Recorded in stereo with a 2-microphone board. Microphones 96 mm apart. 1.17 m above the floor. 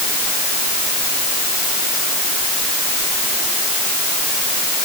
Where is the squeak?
No squeak in this recording.